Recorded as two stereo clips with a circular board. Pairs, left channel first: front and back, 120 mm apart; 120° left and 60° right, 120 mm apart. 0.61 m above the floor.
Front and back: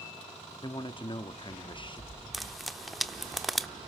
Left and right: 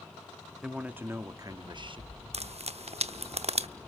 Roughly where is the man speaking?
Ahead.